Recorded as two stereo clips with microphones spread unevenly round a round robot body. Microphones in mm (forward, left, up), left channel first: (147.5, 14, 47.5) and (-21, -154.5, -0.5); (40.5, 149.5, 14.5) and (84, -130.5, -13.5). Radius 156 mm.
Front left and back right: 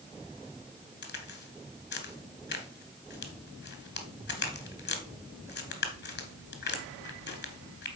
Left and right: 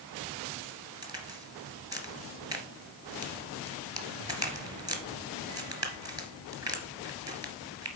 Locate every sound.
1.0 s a crack: 5° right, 1.8 m